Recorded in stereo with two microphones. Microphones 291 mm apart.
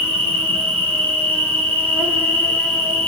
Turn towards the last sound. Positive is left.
turn(degrees=5)  # may be behind; listen again after turning